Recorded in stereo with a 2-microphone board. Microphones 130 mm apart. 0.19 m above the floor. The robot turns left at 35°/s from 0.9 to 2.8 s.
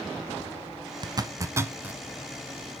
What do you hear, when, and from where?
1.0 s a zipper: 35° right (ahead or behind), 0.5 m; by 2.0 s 10° right (ahead or behind), 0.5 m